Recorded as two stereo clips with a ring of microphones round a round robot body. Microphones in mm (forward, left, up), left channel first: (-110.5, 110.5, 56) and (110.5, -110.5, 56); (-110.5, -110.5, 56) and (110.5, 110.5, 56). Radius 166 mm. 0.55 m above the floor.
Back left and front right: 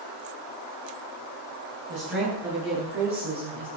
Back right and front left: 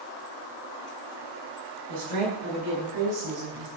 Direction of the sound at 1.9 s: 5° left.